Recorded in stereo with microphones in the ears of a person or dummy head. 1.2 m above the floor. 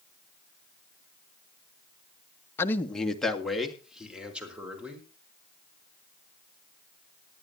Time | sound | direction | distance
2.6 | a man speaking | 15° left (ahead or behind) | 1.2 m